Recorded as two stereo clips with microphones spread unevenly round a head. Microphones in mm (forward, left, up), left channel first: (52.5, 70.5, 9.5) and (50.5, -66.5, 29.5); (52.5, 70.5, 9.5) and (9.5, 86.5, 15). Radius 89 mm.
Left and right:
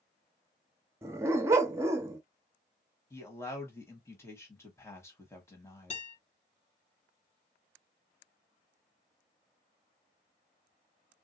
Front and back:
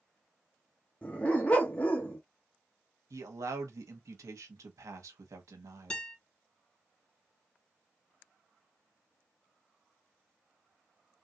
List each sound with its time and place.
1.0 s a dog barking: 70° right, 0.6 m
3.1 s a man speaking: 165° left, 0.9 m
5.9 s a guitar: 50° left, 2.5 m